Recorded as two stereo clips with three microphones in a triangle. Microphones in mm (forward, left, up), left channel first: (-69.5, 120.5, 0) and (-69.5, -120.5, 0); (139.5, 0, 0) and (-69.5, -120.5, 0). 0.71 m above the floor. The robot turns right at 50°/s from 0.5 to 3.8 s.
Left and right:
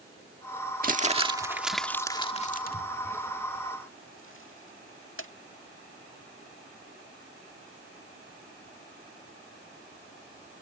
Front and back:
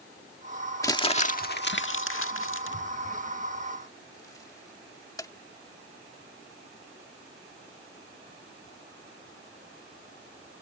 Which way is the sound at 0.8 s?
45° right.